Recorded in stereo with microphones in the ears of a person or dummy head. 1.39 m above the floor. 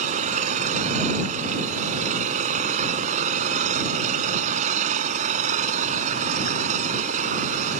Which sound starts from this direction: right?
An engine running, at 0.0 s.